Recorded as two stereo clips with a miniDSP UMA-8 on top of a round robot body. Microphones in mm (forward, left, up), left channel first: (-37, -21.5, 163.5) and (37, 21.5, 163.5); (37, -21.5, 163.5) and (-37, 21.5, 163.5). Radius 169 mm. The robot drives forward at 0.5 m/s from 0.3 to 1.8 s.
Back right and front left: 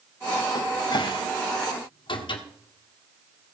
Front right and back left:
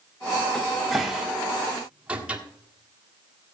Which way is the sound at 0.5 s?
110° right.